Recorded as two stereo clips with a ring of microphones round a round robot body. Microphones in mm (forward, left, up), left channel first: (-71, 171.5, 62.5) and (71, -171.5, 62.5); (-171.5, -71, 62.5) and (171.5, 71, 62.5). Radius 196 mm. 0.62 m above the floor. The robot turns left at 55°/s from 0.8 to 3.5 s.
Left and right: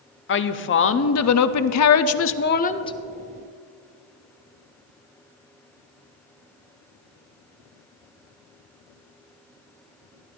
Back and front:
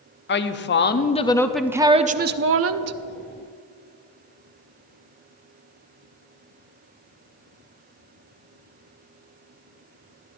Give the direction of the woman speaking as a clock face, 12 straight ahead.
7 o'clock.